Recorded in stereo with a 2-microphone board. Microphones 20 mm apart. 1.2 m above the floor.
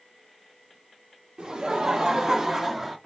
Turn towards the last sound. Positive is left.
turn(degrees=-5)  # may be behind; listen again after turning